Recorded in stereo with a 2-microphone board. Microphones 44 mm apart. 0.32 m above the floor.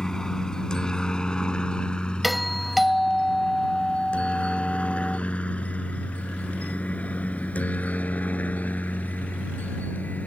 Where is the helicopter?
10° left (ahead or behind); by 10.3 s 35° left (ahead or behind).